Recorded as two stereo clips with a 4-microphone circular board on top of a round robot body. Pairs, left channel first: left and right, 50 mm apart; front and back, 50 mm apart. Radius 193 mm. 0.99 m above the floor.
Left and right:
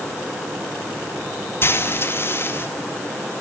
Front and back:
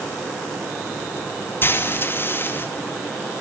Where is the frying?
45° left, 2 m.